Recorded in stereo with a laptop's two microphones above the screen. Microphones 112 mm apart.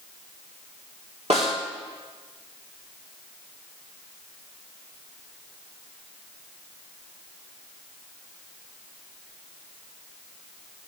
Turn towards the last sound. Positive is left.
turn(degrees=-75)  # may be behind; listen again after turning